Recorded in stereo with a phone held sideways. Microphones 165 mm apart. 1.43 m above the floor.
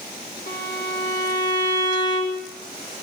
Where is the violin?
80° left, 3 m.